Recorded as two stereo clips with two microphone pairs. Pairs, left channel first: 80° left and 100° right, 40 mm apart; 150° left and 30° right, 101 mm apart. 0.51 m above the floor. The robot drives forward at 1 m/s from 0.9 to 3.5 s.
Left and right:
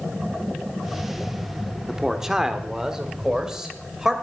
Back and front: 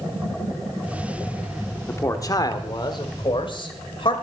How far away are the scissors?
No scissors in this recording.